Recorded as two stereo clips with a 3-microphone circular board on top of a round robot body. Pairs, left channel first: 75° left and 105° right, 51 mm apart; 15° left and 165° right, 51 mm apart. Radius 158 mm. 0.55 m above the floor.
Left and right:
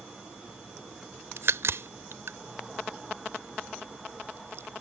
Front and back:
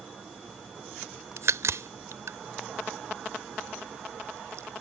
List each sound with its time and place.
1.4 s a crack: 140° right